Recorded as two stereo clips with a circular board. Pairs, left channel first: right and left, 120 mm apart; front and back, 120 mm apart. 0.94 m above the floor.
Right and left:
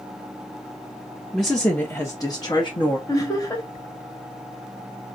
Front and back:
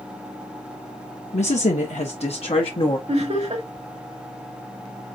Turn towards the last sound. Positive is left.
turn(degrees=-150)